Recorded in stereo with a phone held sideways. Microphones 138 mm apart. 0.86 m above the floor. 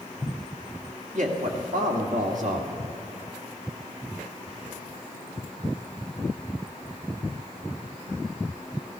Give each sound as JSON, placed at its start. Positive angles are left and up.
{"t": 1.1, "sound": "a man speaking", "side_deg": -70, "distance_m": 1.8}